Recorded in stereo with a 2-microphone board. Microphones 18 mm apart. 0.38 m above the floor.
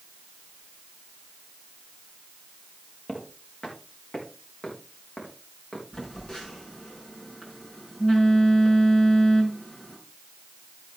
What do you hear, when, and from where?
3.1 s footsteps: 85° left, 4 m
5.9 s a phone buzzing: 55° left (ahead or behind), 4.5 m